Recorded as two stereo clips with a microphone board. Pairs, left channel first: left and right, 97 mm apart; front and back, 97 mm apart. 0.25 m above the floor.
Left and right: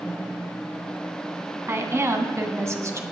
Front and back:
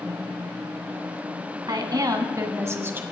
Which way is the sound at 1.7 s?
145° right.